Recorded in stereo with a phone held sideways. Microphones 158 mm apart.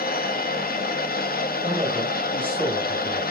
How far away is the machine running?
About 1.2 m.